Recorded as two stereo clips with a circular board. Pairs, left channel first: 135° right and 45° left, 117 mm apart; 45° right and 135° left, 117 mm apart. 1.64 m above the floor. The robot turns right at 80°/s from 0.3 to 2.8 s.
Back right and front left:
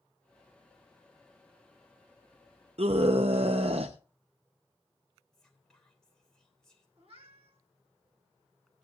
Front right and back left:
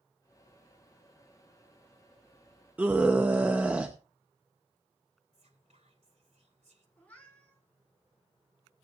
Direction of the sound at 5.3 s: 140° left.